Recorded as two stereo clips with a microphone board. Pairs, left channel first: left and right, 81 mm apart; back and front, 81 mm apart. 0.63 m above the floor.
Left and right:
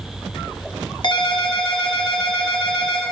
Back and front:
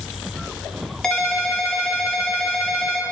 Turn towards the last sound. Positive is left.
turn(degrees=100)